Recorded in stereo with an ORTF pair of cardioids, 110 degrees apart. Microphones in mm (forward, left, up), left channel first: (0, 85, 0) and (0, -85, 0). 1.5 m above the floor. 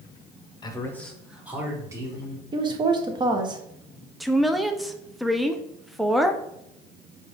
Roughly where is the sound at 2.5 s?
Ahead right.